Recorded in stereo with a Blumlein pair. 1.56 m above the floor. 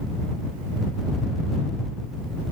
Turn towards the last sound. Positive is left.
No sound to turn to.